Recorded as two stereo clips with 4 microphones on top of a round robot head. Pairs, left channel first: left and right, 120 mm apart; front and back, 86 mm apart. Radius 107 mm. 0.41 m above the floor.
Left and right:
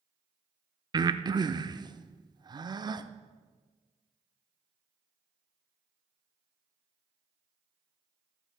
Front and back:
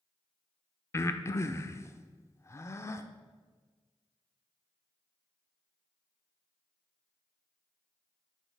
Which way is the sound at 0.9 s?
45° right.